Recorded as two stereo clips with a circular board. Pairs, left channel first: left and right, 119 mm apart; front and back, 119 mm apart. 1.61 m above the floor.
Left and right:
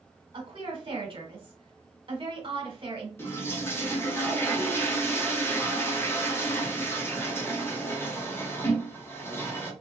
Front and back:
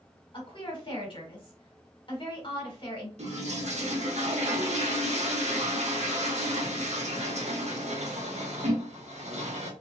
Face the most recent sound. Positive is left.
turn(degrees=160)